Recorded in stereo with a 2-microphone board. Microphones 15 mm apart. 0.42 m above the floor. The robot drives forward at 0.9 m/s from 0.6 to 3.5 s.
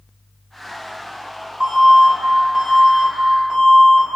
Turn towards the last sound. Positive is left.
turn(degrees=-55)  # may be behind; listen again after turning